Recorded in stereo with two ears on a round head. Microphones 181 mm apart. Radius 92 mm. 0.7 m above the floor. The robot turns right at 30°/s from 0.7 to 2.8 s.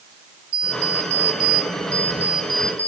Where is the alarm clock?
95° right, 2 m; by 2.9 s 30° right, 2 m.